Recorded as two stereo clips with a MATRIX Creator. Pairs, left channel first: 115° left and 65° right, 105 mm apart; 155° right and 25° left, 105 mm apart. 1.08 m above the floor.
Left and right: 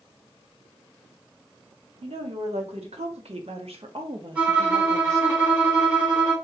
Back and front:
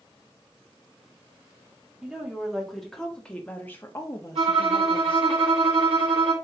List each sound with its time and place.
2.0 s a woman speaking: 60° right, 2.5 m; by 5.3 s 130° right, 1.5 m
4.3 s a violin: 5° left, 3.5 m